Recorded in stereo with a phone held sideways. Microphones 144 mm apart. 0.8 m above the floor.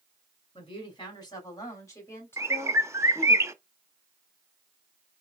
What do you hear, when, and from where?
0.6 s a woman speaking: 35° left (ahead or behind), 3 m; by 3.4 s 10° left (ahead or behind), 3 m
2.4 s a bird: 20° right (ahead or behind), 0.6 m